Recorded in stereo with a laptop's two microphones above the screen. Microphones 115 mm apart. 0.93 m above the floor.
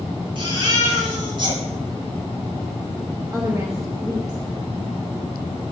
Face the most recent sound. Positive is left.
turn(degrees=-30)  # may be behind; listen again after turning